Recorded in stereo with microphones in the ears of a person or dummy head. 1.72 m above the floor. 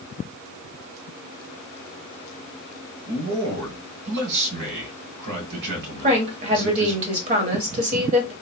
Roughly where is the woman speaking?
Right.